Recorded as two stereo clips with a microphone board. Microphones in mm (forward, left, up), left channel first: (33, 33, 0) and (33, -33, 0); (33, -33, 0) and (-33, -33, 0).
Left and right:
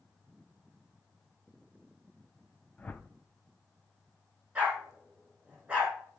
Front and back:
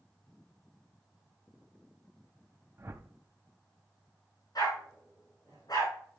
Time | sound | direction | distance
2.8 | a whoosh | 155° left | 0.6 m
4.5 | a dog barking | 25° right | 6.5 m